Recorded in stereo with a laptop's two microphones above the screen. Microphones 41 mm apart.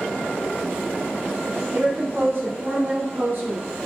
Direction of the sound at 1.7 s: 75° right (ahead or behind).